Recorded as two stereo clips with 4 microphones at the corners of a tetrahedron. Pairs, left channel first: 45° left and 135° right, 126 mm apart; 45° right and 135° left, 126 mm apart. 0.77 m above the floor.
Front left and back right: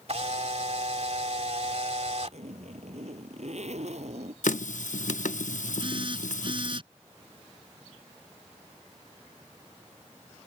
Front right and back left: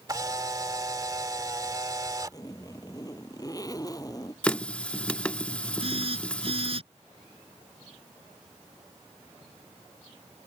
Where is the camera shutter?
165° right.